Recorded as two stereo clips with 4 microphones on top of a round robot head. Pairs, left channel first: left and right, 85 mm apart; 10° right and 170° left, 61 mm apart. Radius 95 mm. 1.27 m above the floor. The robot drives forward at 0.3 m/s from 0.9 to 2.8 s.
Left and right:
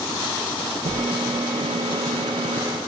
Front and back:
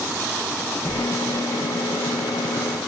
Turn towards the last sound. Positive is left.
turn(degrees=-95)